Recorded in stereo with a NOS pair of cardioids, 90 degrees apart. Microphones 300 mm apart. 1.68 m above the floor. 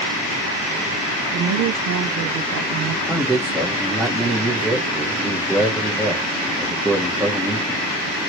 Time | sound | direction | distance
1.3 | a woman speaking | 70° right | 0.7 m
3.1 | a man speaking | 5° right | 1.0 m